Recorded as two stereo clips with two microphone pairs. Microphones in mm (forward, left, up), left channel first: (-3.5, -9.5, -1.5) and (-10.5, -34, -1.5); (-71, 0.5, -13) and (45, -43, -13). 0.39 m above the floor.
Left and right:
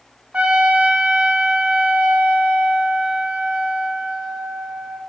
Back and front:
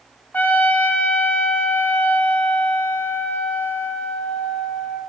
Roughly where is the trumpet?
Behind right.